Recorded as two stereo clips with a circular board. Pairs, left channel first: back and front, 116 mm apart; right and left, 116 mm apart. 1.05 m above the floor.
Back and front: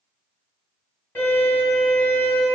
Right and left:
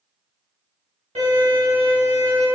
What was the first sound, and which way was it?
A violin, 105° left.